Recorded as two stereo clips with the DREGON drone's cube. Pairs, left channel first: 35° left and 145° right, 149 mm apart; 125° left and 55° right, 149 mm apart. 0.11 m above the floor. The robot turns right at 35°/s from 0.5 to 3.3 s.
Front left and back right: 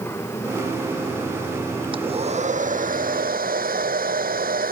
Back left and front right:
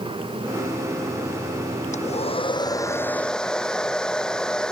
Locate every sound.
1.9 s a hair dryer: 160° left; by 4.7 s 150° right